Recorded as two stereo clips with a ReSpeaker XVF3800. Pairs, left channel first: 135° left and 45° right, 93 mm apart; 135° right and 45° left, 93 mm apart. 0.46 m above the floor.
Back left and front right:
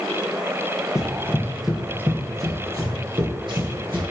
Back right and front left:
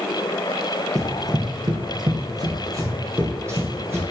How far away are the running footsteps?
About 0.7 m.